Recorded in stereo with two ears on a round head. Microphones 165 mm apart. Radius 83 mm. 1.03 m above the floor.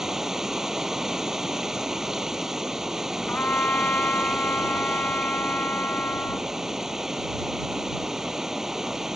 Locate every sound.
0.0 s running water: 5° right (ahead or behind)
3.3 s a trumpet: 10° left (ahead or behind)